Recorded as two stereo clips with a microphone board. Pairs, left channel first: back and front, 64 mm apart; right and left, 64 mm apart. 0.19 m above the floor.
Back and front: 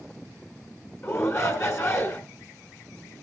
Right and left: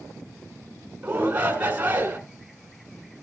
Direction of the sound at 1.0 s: 150° left.